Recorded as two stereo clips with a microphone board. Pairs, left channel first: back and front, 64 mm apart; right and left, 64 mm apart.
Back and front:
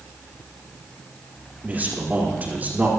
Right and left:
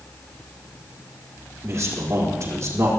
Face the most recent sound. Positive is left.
turn(degrees=60)